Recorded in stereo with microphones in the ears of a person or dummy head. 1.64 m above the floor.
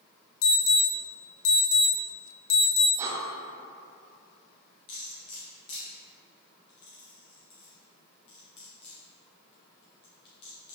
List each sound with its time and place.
0.4 s an alarm: 85° left, 1.2 m
3.0 s breathing: 20° right (ahead or behind), 0.6 m
4.9 s cutlery clinking: 20° left (ahead or behind), 0.7 m